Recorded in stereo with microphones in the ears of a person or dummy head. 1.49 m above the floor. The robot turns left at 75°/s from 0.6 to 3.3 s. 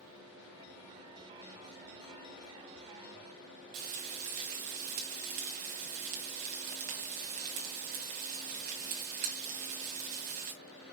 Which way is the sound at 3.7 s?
45° right (ahead or behind).